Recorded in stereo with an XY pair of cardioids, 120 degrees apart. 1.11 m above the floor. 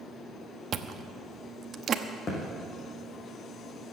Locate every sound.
0.7 s chewing: 45° right, 1.0 m
2.3 s a thud: 35° left, 5.5 m